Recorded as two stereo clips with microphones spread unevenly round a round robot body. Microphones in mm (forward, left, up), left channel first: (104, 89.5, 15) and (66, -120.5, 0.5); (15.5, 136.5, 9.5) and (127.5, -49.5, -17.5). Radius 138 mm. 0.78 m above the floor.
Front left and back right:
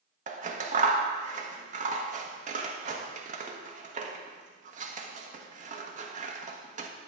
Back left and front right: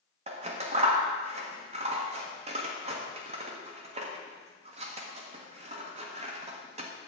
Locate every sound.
0.3 s scissors: 85° right, 1.1 m